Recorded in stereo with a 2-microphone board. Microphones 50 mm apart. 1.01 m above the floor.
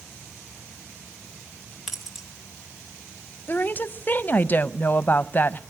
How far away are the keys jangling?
About 3 m.